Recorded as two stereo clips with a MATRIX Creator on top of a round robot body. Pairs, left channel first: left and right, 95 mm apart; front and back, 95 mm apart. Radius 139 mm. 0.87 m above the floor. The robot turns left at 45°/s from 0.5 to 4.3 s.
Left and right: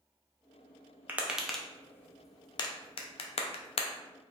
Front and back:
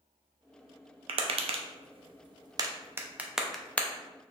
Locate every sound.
1.1 s tapping: 160° right, 0.5 m; by 3.9 s 75° left, 0.5 m